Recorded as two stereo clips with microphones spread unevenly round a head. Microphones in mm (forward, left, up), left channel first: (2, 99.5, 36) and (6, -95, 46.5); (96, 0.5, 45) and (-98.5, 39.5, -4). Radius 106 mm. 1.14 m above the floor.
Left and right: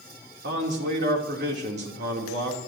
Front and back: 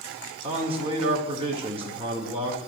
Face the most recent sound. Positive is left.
turn(degrees=-130)